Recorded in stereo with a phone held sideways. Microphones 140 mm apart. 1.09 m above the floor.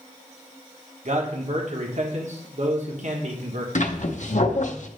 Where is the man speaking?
60° right (ahead or behind), 1.4 m.